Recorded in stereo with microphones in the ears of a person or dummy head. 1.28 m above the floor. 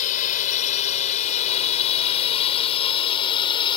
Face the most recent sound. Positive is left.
turn(degrees=25)  # may be behind; listen again after turning